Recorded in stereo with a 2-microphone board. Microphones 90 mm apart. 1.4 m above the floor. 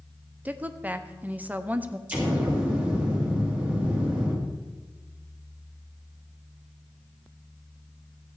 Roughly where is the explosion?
Centre.